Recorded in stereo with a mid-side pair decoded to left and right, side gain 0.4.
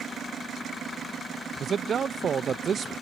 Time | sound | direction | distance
1.6 | a man speaking | 45° right | 0.5 m